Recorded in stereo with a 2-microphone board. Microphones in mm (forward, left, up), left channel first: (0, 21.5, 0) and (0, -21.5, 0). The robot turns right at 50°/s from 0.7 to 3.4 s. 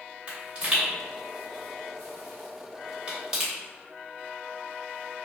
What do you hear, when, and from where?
0.3 s a pop: 30° right (ahead or behind), 2.0 m; by 3.5 s 5° right (ahead or behind), 2.0 m